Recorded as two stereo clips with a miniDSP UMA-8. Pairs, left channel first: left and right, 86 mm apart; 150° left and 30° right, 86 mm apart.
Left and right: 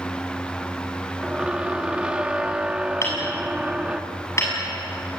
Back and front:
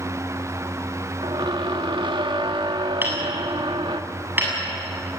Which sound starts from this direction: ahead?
A squeak, at 1.2 s.